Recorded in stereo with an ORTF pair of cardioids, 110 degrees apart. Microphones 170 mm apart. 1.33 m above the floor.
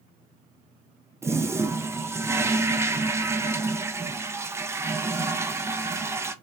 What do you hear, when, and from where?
1.2 s a toilet flushing: 15° right, 0.5 m